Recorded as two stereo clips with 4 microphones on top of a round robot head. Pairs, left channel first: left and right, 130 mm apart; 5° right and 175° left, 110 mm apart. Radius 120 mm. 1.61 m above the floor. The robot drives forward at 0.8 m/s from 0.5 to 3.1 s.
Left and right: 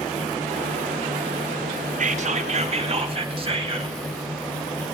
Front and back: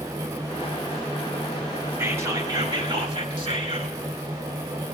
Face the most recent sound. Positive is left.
turn(degrees=-135)